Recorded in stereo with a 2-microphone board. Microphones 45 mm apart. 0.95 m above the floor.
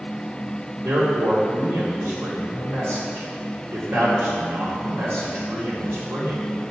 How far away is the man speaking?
About 2 m.